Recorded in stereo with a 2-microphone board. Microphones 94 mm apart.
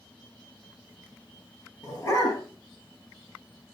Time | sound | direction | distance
1.8 | a dog barking | 35° left (ahead or behind) | 6 m